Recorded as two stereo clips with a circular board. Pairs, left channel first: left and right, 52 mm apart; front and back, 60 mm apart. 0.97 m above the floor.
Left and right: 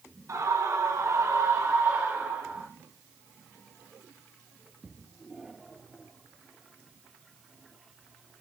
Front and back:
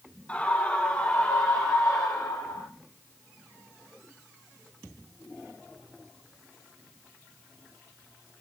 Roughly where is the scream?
Ahead right.